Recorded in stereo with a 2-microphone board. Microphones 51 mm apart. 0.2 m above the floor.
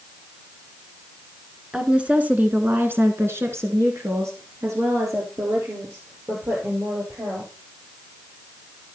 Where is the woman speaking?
20° right (ahead or behind), 2.0 m; by 7.5 s 60° right (ahead or behind), 4.5 m.